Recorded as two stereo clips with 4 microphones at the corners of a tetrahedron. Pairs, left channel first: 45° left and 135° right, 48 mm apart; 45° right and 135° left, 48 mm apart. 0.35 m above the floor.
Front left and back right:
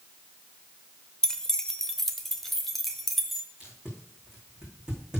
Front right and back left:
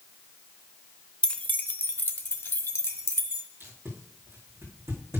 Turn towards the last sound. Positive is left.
turn(degrees=150)